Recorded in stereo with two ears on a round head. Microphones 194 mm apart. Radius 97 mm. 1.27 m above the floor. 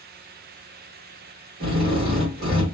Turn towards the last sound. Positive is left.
turn(degrees=-45)  # may be behind; listen again after turning